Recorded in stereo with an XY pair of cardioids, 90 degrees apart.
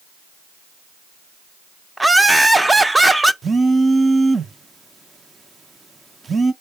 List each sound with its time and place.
2.0 s laughter: 15° right, 0.7 m
3.4 s a phone buzzing: 30° right, 0.6 m